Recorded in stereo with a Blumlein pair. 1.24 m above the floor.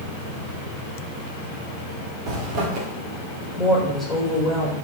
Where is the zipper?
40° right, 2 m.